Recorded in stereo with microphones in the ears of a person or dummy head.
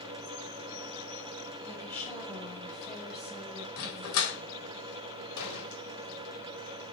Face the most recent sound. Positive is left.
turn(degrees=80)